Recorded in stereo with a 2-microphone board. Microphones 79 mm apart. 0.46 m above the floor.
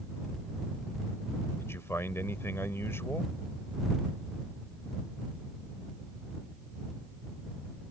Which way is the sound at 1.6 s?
35° left (ahead or behind).